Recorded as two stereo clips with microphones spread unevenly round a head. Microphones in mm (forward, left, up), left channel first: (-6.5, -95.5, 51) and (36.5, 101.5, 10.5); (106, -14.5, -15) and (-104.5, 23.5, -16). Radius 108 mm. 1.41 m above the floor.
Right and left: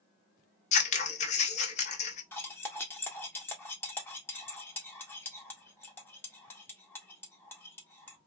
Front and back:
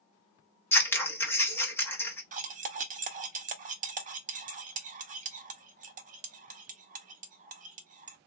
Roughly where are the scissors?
Right.